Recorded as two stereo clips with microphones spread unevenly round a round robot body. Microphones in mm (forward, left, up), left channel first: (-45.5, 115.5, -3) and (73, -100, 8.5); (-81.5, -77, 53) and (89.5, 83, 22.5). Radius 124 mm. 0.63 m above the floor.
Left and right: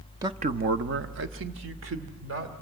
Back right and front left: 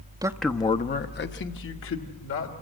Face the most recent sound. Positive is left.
turn(degrees=-105)